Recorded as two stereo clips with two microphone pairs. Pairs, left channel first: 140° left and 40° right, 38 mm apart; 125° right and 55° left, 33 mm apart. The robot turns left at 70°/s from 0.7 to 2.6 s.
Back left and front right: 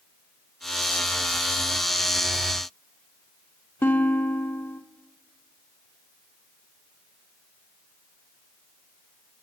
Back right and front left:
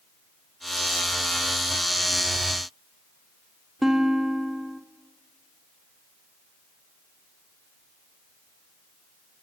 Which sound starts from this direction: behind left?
A guitar, at 3.8 s.